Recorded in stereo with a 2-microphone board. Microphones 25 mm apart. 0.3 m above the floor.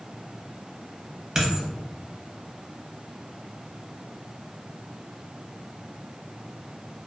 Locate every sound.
1.4 s a dropped coin: 25° right (ahead or behind), 0.6 m